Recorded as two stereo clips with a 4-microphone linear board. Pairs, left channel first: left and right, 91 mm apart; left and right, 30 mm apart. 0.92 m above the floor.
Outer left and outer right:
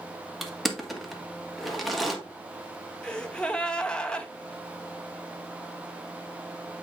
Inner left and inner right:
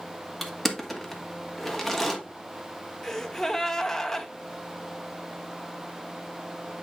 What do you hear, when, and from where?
0.4 s crushing: centre (ahead or behind), 1.5 m
3.0 s a gasp: 10° left (ahead or behind), 0.9 m